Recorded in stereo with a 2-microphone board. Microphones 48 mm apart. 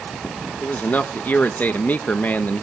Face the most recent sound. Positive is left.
turn(degrees=35)  # may be behind; listen again after turning